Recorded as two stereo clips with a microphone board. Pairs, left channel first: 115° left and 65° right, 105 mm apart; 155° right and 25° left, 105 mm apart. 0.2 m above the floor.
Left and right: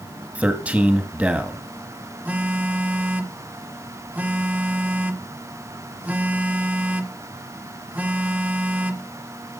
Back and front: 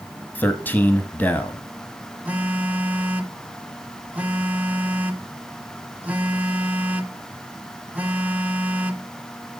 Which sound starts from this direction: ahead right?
A phone buzzing, at 2.2 s.